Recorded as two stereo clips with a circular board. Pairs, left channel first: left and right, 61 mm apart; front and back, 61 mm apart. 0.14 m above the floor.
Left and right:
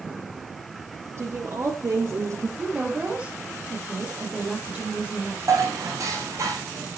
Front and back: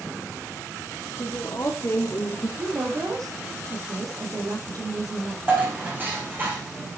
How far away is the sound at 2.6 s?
About 4.5 m.